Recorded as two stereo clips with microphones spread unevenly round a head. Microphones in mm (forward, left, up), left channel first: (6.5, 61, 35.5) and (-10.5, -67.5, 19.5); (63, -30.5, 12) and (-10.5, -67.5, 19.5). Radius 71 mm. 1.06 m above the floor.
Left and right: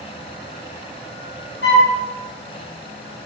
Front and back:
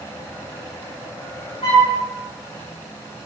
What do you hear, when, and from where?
1.6 s a flute: 80° left, 4.5 m